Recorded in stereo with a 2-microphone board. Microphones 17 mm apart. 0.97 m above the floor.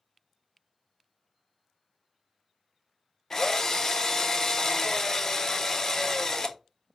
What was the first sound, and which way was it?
A drill, 25° left (ahead or behind).